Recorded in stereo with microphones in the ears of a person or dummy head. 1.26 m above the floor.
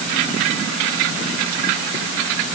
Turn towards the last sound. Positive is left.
No sound to turn to.